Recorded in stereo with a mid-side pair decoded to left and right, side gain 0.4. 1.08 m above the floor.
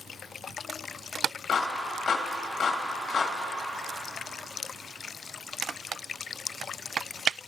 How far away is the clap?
About 1.8 m.